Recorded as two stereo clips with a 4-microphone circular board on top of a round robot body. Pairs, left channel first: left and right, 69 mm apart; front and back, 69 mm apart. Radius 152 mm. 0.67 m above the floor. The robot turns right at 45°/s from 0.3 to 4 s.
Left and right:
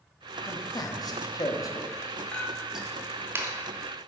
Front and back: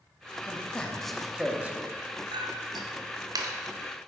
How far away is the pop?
No pop in this recording.